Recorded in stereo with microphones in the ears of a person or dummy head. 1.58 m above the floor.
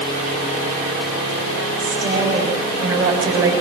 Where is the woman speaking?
15° right (ahead or behind), 7.5 m.